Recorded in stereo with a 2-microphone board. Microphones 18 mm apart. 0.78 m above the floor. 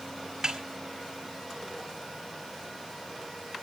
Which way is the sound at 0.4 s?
30° right (ahead or behind).